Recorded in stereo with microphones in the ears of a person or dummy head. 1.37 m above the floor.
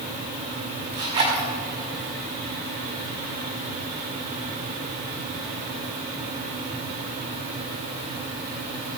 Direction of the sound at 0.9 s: 20° right (ahead or behind).